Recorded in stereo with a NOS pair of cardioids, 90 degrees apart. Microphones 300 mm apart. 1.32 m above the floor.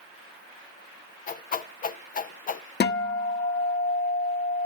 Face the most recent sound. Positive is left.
turn(degrees=35)